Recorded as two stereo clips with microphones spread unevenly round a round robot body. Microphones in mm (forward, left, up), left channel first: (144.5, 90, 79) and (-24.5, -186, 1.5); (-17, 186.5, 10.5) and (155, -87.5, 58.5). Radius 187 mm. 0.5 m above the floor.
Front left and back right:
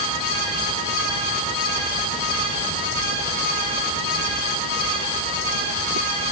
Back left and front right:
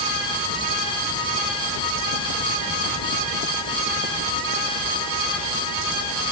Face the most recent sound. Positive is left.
No sound to turn to.